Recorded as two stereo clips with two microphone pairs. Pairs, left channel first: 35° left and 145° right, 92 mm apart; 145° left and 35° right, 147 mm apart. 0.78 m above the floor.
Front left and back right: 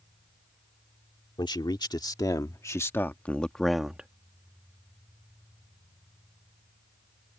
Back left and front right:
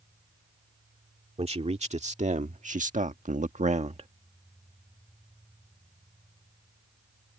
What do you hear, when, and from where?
1.4 s a man speaking: 5° left; by 4.1 s 70° right